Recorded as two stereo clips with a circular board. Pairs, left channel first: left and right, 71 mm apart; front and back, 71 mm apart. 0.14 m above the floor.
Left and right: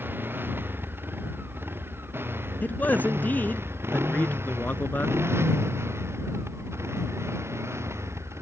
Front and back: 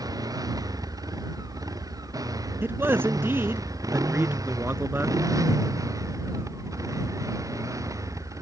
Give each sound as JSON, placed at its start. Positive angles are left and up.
{"t": 0.0, "sound": "a motorcycle", "azimuth_deg": -150}
{"t": 2.6, "sound": "a man speaking", "azimuth_deg": 140}